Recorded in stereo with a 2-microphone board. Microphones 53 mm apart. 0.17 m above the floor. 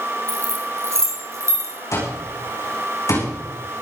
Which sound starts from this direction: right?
Keys jangling, at 0.3 s.